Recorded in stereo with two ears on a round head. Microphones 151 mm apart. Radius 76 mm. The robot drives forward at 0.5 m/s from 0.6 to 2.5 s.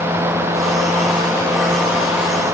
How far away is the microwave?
I don't hear a microwave.